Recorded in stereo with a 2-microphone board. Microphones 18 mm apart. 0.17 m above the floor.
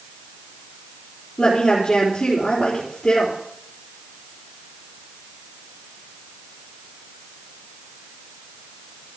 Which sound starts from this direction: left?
A woman speaking, at 1.4 s.